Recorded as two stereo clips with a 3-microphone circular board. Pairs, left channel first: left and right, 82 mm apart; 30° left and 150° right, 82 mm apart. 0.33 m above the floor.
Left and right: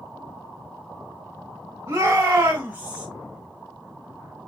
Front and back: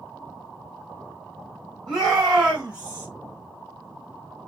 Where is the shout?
55° right, 1.4 m; by 3.1 s 140° right, 1.0 m.